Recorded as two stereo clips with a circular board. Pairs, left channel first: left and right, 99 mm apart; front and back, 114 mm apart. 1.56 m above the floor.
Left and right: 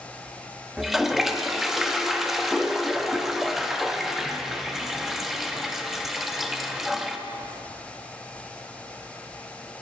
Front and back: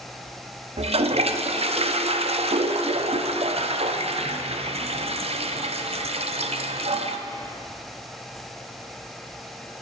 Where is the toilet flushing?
175° right, 0.5 m.